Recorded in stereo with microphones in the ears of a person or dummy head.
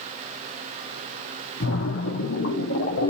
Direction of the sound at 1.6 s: 65° left (ahead or behind).